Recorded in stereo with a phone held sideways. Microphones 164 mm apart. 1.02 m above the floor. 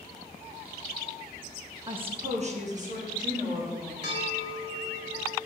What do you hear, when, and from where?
1.9 s a woman speaking: 25° right (ahead or behind), 0.6 m; by 3.9 s 50° right (ahead or behind), 2.5 m
4.0 s a bell: 85° right, 3 m